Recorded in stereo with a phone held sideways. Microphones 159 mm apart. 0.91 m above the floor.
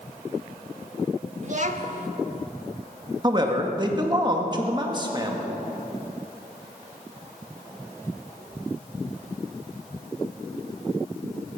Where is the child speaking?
50° right (ahead or behind), 1.2 m.